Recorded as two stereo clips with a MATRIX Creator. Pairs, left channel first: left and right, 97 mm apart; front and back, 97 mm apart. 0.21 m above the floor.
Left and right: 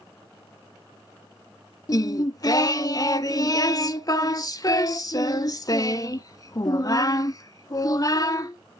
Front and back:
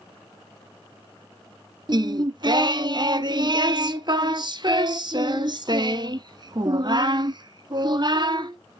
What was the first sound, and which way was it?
Singing, 140° left.